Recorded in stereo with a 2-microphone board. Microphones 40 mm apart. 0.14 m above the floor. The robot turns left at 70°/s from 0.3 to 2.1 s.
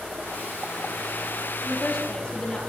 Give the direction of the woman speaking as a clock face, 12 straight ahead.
6 o'clock.